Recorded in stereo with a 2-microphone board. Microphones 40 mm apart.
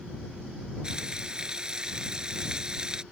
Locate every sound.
0.8 s frying: 20° right (ahead or behind)